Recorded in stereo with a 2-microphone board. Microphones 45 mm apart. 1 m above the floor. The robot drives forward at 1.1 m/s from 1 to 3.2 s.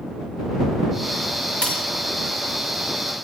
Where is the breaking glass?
30° left (ahead or behind), 4 m.